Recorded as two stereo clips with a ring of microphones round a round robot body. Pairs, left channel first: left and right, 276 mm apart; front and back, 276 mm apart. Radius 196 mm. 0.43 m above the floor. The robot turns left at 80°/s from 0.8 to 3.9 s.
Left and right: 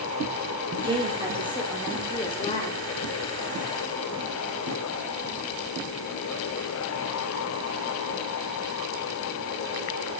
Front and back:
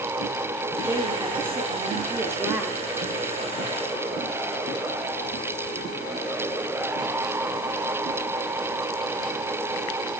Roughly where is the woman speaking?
Behind right.